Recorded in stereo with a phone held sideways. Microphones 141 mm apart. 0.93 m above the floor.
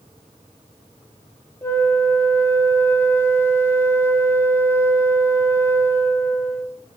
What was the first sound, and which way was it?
A flute, 20° left (ahead or behind).